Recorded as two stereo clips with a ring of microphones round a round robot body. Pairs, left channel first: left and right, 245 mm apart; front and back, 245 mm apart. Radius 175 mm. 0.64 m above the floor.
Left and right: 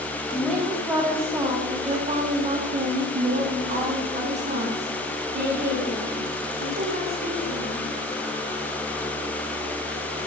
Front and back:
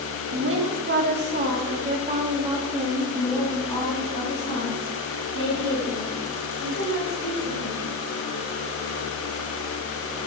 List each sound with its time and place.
0.3 s a woman speaking: straight behind, 1.5 m; by 7.9 s 40° right, 3 m